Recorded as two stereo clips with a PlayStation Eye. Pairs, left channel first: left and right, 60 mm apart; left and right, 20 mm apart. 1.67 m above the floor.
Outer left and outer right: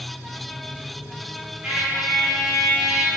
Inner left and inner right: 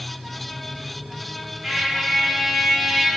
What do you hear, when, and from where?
1.6 s a trumpet: 25° right (ahead or behind), 1.4 m